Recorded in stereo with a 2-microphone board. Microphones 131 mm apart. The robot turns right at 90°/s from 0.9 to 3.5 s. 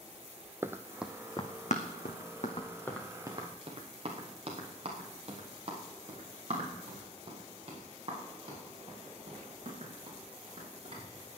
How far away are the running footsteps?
About 0.8 m.